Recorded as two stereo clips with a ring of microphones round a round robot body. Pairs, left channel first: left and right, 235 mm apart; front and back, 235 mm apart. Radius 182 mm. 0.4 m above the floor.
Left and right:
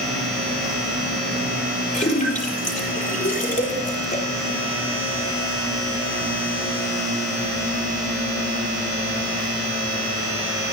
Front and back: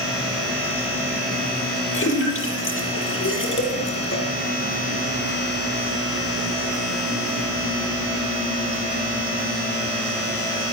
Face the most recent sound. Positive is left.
turn(degrees=35)